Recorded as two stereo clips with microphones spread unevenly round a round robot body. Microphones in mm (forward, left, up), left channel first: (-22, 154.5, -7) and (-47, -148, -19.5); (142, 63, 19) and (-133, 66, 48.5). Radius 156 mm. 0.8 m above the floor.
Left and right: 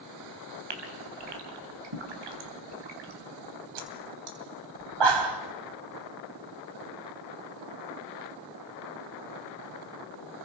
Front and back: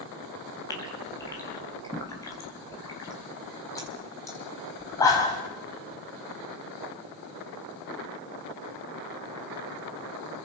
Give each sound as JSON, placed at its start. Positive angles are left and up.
{"t": 0.7, "sound": "a gasp", "azimuth_deg": -80, "distance_m": 3.5}